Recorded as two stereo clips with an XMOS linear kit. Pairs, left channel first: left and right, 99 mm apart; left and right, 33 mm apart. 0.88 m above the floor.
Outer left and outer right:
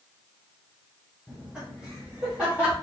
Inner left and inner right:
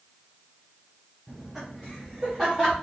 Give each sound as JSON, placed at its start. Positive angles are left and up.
{"t": 1.3, "sound": "laughter", "side_deg": -10, "distance_m": 1.0}